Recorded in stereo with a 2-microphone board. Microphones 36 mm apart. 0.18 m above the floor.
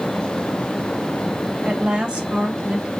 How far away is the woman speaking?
About 1.8 m.